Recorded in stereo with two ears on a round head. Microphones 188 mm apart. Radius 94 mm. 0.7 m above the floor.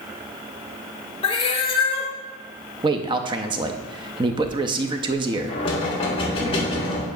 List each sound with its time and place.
1.2 s a cat meowing: 25° left (ahead or behind), 0.9 m
2.8 s a man speaking: 25° right (ahead or behind), 0.5 m
5.5 s knocking: 25° left (ahead or behind), 1.8 m